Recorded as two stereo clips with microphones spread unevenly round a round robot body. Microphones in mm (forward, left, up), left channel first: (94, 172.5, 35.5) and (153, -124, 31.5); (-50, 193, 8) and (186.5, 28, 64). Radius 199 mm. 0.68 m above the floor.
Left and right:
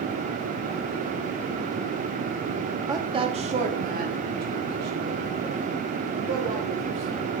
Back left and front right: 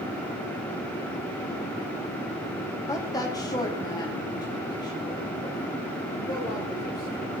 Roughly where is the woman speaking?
Behind right.